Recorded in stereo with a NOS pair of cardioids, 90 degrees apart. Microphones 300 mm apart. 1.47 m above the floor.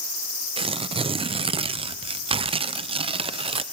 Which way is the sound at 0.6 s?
20° right.